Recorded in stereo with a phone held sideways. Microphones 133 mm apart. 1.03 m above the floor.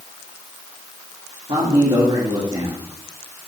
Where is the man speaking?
45° right (ahead or behind), 2 m.